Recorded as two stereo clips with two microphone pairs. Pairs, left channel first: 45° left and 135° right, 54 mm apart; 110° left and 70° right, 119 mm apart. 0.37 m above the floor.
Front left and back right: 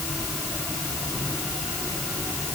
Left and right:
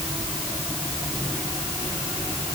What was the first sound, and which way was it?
Only background noise.